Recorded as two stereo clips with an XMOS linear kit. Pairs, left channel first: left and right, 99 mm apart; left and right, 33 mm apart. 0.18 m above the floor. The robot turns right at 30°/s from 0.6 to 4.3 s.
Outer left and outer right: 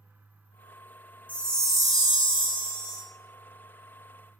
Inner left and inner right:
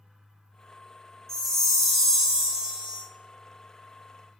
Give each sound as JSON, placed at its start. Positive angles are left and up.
{"t": 1.3, "sound": "a chime", "azimuth_deg": 165, "distance_m": 0.9}